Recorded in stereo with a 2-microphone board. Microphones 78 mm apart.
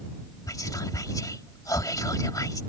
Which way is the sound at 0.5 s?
50° left (ahead or behind).